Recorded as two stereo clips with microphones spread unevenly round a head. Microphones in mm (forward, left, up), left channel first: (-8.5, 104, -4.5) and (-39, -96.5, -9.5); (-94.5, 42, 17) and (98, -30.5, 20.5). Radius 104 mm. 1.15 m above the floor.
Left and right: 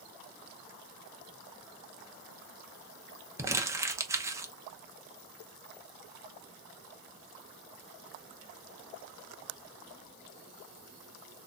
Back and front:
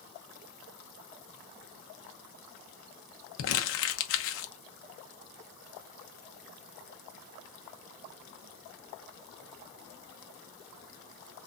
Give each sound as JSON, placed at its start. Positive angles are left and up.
{"t": 3.4, "sound": "crumpling", "azimuth_deg": -175, "distance_m": 0.8}